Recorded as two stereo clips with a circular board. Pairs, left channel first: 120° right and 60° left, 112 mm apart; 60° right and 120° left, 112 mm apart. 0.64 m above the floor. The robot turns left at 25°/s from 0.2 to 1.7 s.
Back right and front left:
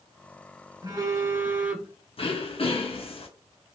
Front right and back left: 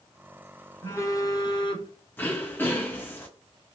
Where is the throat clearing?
130° right, 0.6 m.